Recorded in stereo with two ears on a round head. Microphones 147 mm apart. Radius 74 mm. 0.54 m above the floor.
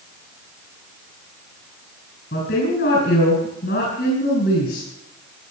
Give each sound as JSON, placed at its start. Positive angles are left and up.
{"t": 2.3, "sound": "a woman speaking", "side_deg": 65, "distance_m": 6.0}